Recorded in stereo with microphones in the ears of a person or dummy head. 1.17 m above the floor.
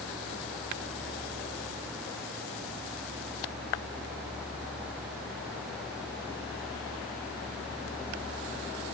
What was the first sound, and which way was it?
Only background noise.